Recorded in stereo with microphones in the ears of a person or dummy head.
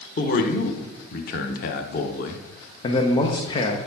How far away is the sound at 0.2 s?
About 0.8 m.